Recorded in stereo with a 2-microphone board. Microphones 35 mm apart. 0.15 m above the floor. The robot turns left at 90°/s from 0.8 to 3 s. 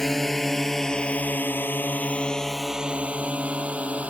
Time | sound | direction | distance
0.0 | a drone | 10° left (ahead or behind) | ?